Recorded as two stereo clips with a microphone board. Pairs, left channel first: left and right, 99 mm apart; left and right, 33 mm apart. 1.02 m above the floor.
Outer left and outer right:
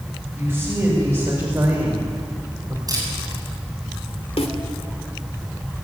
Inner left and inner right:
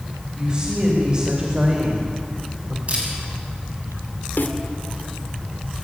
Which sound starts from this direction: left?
A snare drum, at 4.4 s.